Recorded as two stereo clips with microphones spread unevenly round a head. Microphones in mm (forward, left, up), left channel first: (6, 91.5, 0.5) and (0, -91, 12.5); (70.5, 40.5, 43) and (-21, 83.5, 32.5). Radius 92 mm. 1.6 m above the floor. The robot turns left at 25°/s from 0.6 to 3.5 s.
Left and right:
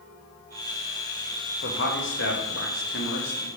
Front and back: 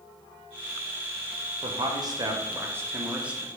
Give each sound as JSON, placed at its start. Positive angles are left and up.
{"t": 1.6, "sound": "a man speaking", "azimuth_deg": 115, "distance_m": 0.8}